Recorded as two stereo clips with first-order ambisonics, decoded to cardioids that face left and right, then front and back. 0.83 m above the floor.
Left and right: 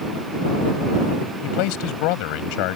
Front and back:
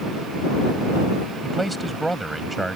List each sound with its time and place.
1.4 s a man speaking: 95° left